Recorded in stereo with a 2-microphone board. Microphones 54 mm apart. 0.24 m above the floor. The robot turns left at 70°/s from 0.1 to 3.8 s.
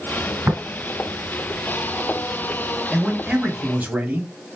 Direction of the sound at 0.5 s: 50° right (ahead or behind).